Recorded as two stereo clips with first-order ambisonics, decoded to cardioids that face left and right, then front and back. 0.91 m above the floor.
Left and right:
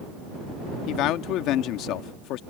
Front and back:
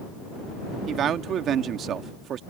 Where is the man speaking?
125° left.